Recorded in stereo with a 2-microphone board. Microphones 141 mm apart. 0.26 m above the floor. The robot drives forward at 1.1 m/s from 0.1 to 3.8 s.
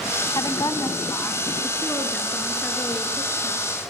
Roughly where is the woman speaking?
Left.